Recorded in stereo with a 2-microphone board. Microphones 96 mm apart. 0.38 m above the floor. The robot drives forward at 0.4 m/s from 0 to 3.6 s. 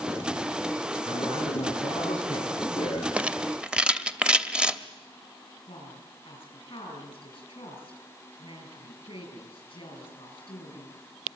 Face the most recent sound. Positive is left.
turn(degrees=55)  # may be behind; listen again after turning